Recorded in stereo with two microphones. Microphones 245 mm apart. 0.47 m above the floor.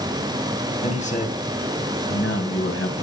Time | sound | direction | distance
0.8 | a man speaking | 25° left (ahead or behind) | 2.5 m